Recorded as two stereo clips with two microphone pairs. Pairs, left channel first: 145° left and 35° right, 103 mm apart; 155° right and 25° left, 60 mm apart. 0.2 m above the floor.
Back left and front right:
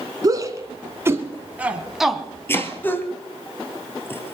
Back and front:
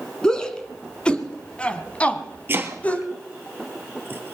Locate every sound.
0.2 s a shout: 80° right, 1.9 m; by 3.1 s 175° left, 1.2 m
2.5 s chopping: 75° left, 1.4 m